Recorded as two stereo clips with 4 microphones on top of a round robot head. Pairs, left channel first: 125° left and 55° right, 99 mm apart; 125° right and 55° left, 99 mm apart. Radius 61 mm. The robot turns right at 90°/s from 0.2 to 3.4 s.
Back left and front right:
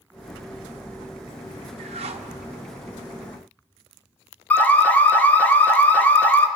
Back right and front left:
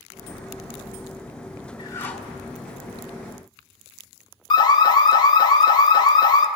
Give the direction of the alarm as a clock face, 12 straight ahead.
5 o'clock.